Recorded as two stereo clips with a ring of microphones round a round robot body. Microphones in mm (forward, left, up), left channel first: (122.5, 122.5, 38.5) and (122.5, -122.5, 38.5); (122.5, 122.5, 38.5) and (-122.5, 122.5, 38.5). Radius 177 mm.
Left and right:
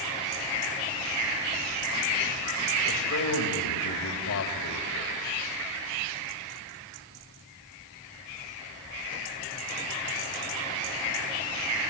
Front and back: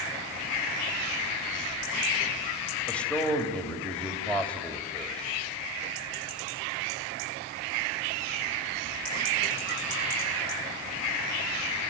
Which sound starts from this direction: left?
A man speaking, at 2.9 s.